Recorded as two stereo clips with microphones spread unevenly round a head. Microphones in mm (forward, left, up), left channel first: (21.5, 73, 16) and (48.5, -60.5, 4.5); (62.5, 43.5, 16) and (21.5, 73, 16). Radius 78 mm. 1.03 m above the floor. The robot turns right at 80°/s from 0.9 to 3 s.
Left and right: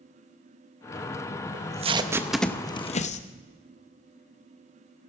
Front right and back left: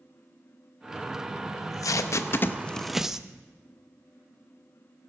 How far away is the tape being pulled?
About 0.8 m.